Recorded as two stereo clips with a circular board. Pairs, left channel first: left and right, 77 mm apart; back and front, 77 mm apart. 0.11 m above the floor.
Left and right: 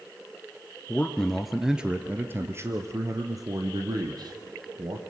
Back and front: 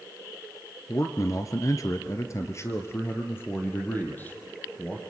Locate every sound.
0.9 s a man speaking: 155° left, 1.8 m; by 5.0 s 110° right, 4 m